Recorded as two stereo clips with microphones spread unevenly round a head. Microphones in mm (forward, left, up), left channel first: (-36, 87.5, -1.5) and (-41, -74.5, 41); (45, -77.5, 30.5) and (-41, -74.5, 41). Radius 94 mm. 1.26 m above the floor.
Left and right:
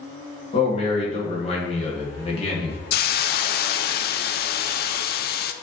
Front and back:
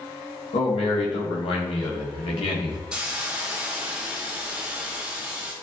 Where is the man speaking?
30° left, 1.7 m.